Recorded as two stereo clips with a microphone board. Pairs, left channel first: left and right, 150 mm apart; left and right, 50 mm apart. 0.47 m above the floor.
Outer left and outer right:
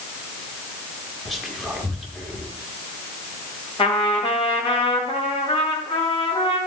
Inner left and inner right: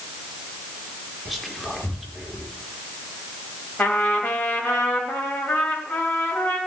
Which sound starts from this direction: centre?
Whispering, at 1.2 s.